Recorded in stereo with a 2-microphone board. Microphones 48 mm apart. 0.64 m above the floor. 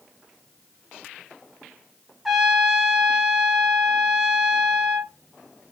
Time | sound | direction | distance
2.2 | a trumpet | 5° right (ahead or behind) | 0.7 m